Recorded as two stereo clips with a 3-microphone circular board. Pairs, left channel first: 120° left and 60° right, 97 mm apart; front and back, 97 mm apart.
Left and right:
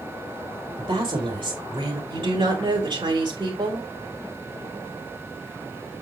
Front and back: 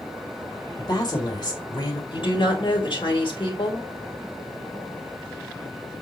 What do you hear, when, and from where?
0.8 s a woman speaking: 40° right, 3.5 m
2.1 s a woman speaking: 30° right, 3.5 m